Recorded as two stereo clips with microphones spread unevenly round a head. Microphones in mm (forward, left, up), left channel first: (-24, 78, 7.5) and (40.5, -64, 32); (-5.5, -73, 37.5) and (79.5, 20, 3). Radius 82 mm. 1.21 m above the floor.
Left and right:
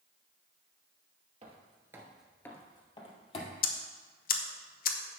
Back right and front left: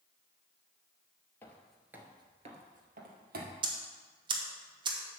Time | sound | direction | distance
1.4 | footsteps | 85° right | 1.6 m
3.6 | ticking | 95° left | 0.9 m